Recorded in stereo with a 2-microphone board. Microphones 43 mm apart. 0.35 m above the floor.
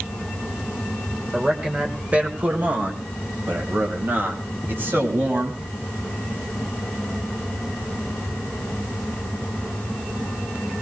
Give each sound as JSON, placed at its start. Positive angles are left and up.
{"t": 1.3, "sound": "a man speaking", "side_deg": -20, "distance_m": 1.6}